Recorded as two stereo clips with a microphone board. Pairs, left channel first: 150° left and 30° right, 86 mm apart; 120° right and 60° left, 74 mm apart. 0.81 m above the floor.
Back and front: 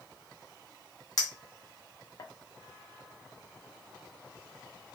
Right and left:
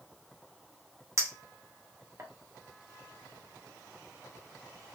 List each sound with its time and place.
1.2 s a clink: 110° left, 0.5 m